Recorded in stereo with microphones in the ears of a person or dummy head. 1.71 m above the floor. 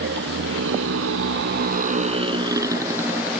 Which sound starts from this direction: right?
A motorcycle, at 0.0 s.